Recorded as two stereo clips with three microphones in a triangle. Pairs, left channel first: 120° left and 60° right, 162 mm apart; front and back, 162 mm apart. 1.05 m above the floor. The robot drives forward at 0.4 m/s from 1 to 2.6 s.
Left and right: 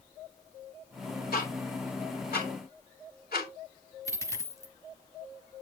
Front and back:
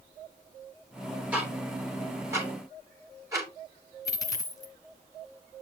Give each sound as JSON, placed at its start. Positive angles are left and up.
{"t": 1.3, "sound": "ticking", "azimuth_deg": 100, "distance_m": 3.0}
{"t": 4.0, "sound": "a dropped coin", "azimuth_deg": 55, "distance_m": 1.3}